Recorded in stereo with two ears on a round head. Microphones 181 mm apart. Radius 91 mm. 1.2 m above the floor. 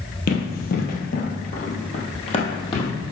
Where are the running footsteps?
50° left (ahead or behind), 1.8 m; by 2.9 s 25° left (ahead or behind), 2.5 m.